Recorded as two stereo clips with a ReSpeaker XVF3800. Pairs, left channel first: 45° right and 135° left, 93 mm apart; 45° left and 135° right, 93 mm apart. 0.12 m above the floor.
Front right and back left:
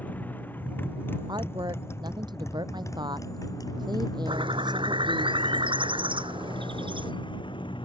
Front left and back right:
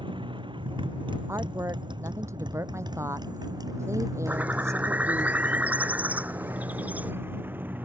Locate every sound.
0.0 s a motorcycle: 115° right; by 7.9 s 65° right
1.3 s a woman speaking: 170° left
4.3 s a bird: 150° left